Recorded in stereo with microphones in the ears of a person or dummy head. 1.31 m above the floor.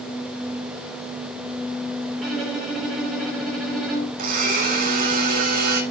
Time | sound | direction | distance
2.2 | a violin | centre (ahead or behind) | 2.5 m
4.2 | a blender | 50° right (ahead or behind) | 2.0 m